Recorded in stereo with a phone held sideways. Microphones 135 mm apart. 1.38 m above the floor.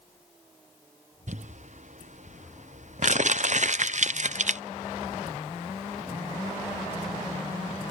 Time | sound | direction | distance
1.3 | crumpling | 60° right (ahead or behind) | ?